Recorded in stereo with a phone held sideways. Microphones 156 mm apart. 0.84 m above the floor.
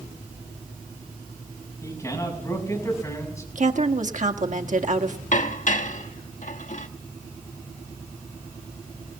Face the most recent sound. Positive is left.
turn(degrees=60)  # may be behind; listen again after turning